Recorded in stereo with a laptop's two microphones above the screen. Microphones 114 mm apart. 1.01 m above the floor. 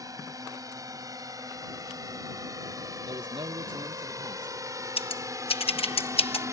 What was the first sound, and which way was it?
A drone, 30° right (ahead or behind).